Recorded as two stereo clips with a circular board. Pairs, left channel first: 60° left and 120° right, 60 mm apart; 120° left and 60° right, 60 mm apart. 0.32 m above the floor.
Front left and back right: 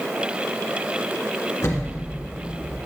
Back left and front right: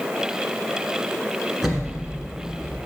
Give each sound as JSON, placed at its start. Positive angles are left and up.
{"t": 1.6, "sound": "an explosion", "azimuth_deg": 25, "distance_m": 1.1}